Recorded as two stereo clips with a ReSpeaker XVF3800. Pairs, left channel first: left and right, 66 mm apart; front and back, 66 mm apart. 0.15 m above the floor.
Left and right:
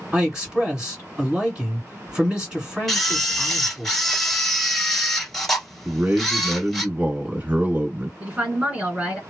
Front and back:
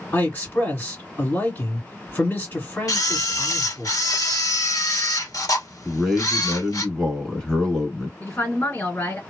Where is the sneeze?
I don't hear a sneeze.